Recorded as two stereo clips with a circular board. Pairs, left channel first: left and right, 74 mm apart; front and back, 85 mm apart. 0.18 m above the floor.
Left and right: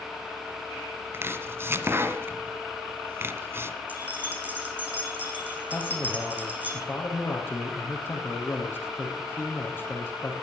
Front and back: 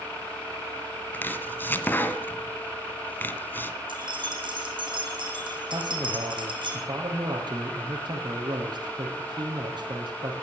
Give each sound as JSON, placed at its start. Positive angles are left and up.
{"t": 1.1, "sound": "chopping", "azimuth_deg": -55, "distance_m": 2.0}
{"t": 3.9, "sound": "keys jangling", "azimuth_deg": -160, "distance_m": 6.5}
{"t": 5.7, "sound": "a man speaking", "azimuth_deg": 150, "distance_m": 5.0}